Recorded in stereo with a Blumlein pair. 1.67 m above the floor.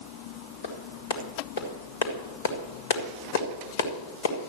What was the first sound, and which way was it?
A clap, 65° left.